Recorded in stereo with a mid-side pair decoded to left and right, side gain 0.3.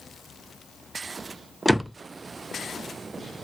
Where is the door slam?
5° right, 0.5 m.